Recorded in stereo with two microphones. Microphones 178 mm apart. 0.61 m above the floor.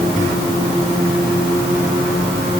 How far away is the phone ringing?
I don't hear a phone ringing.